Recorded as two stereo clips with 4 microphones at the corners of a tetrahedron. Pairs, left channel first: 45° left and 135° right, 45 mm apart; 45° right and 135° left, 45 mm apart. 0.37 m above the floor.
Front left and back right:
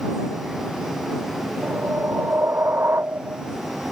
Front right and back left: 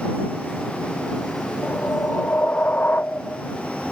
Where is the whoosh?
100° right.